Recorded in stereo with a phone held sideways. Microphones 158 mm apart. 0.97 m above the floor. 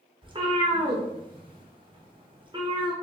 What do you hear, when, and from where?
0.2 s a cat meowing: 30° right (ahead or behind), 0.6 m